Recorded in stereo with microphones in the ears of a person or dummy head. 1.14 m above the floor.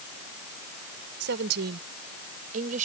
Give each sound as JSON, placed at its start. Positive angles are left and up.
{"t": 1.2, "sound": "a woman speaking", "side_deg": -65}